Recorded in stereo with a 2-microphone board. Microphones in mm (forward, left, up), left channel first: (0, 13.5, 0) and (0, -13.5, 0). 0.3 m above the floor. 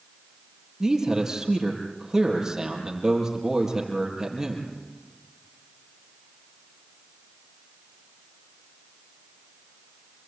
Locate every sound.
0.8 s a man speaking: 20° right (ahead or behind), 6.5 m